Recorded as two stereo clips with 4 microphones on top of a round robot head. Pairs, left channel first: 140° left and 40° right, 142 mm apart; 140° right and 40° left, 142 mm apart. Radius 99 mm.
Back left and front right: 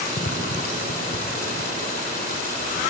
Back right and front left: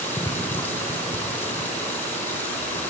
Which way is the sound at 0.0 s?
145° left.